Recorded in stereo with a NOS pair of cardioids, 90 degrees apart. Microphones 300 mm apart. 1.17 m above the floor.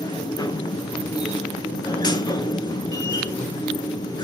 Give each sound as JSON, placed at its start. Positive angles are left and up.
{"t": 0.0, "sound": "a machine running", "azimuth_deg": 15, "distance_m": 0.7}